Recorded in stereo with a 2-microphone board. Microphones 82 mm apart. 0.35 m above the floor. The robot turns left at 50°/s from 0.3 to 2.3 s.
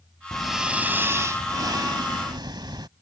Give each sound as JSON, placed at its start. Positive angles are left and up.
{"t": 0.3, "sound": "breathing", "azimuth_deg": 5}